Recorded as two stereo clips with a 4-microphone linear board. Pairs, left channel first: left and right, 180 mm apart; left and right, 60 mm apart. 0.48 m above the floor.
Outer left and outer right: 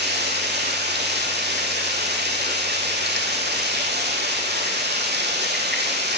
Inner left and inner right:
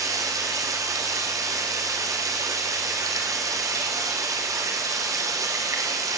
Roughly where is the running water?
Right.